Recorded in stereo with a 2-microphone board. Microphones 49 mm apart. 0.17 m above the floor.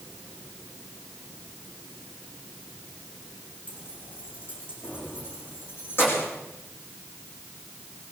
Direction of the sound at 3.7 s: 35° left (ahead or behind).